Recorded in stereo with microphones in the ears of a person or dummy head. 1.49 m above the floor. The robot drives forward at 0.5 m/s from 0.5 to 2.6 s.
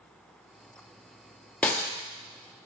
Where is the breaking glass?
10° left (ahead or behind), 0.5 m.